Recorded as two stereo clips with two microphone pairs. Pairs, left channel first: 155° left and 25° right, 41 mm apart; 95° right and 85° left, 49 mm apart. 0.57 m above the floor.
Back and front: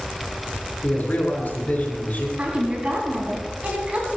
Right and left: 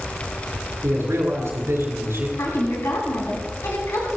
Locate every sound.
0.8 s a man speaking: 110° left, 7 m
2.4 s a woman speaking: 80° right, 4 m